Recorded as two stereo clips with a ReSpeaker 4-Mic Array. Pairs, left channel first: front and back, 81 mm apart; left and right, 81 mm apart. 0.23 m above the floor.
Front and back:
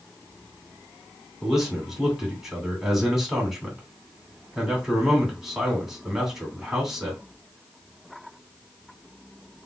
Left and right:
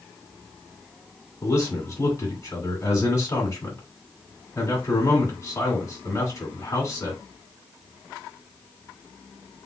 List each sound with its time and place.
1.4 s a man speaking: 100° left, 2 m